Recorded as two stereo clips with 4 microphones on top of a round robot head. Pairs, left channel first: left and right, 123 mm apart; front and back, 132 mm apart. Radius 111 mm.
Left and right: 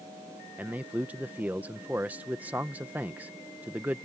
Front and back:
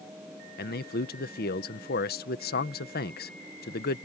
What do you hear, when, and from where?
0.6 s a man speaking: 10° right